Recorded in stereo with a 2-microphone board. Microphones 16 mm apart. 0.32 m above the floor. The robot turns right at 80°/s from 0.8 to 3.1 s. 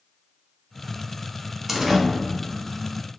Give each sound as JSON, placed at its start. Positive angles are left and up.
{"t": 1.7, "sound": "a door slam", "side_deg": -20, "distance_m": 0.9}